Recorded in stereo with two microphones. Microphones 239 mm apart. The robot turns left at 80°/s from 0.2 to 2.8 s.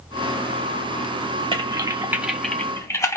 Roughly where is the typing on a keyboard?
Right.